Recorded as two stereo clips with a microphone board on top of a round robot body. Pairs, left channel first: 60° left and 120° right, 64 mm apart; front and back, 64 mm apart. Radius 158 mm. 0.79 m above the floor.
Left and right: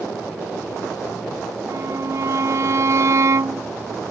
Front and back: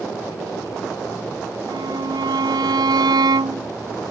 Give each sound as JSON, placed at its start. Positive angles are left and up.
{"t": 1.7, "sound": "a violin", "azimuth_deg": -165}